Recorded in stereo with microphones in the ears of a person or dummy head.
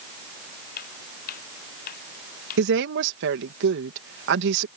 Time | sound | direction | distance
0.8 | footsteps | 60° left (ahead or behind) | ?
2.6 | a woman speaking | 65° right (ahead or behind) | ?